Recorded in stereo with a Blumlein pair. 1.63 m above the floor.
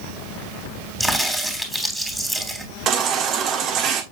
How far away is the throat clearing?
I don't hear throat clearing.